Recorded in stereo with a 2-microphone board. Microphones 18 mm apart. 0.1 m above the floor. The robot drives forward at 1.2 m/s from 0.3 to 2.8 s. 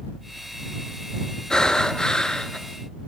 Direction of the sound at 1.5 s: 30° left (ahead or behind).